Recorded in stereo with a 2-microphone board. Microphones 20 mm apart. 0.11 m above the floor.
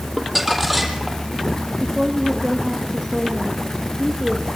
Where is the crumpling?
5° right (ahead or behind), 4 m.